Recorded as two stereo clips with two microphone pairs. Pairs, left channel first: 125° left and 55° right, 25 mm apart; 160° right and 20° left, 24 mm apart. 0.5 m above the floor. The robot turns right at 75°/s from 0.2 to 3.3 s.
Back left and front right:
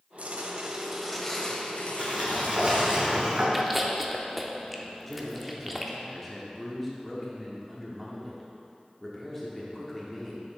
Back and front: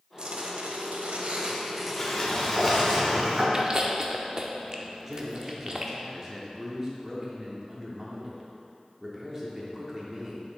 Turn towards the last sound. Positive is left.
turn(degrees=60)